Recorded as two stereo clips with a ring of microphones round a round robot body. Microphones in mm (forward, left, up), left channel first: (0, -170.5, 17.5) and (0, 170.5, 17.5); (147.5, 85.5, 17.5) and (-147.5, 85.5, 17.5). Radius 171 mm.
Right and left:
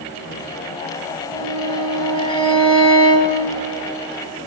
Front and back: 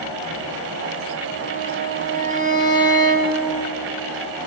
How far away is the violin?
About 4 m.